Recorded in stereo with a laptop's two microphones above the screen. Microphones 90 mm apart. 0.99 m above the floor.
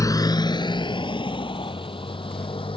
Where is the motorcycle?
40° left (ahead or behind); by 2.8 s 75° left (ahead or behind).